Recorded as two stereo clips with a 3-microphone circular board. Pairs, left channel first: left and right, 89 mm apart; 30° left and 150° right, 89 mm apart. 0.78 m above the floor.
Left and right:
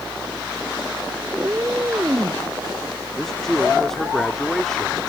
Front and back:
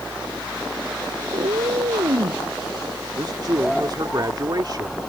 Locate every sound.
1.3 s a cat meowing: 155° right; by 2.4 s 150° right
3.2 s a man speaking: 175° left